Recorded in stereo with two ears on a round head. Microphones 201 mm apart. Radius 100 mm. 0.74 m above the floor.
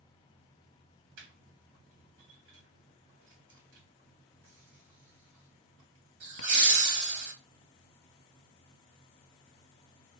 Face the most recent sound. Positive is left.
turn(degrees=-60)  # may be behind; listen again after turning